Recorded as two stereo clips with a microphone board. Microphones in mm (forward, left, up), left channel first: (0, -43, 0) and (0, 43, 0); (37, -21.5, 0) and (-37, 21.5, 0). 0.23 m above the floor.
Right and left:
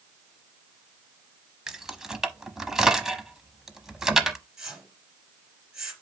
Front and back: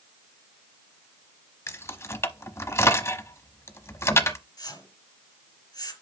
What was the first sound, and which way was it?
Keys jangling, 10° left.